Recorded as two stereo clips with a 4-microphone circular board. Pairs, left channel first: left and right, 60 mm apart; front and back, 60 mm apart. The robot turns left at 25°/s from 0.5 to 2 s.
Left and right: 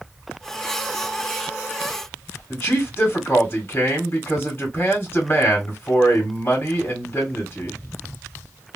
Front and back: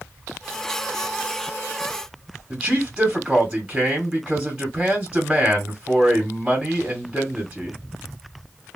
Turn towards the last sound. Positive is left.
turn(degrees=115)